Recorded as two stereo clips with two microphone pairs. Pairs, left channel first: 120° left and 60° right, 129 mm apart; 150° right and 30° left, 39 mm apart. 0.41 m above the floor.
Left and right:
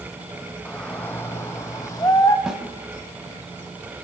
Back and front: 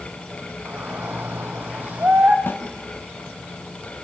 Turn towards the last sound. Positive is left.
turn(degrees=-145)